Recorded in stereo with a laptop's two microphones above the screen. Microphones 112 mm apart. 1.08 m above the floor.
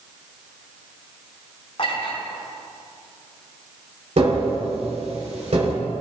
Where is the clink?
55° left (ahead or behind), 5.5 m.